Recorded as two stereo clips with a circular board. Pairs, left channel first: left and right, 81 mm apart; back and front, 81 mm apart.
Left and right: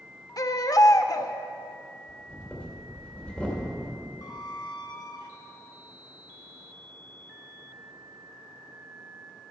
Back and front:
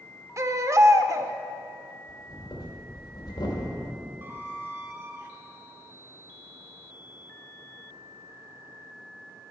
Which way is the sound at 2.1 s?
165° left.